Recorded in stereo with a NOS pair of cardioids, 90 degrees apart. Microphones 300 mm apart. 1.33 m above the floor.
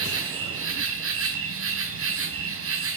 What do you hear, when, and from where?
0.0 s an insect: 50° right, 3.5 m